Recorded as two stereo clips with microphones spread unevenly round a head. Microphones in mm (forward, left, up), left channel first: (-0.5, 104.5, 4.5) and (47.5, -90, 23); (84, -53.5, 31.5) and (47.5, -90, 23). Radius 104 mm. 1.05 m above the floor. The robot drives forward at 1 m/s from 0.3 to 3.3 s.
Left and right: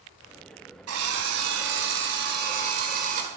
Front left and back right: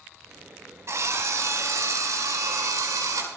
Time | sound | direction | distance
0.9 | a drill | 100° right | 4 m